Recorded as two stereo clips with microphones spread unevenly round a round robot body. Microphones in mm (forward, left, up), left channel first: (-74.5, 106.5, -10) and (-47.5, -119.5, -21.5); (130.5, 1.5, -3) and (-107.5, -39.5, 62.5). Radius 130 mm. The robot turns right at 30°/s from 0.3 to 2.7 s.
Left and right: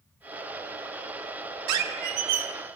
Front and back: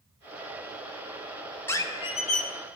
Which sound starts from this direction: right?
A squeak, at 1.7 s.